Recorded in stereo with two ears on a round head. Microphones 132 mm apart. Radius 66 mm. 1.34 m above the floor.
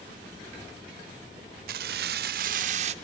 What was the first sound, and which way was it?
Keys jangling, 70° right (ahead or behind).